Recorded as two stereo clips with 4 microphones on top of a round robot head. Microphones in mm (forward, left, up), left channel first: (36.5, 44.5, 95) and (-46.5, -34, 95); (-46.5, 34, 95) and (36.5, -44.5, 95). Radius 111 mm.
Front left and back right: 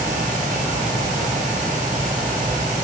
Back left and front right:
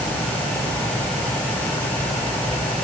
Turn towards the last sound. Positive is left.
No sound to turn to.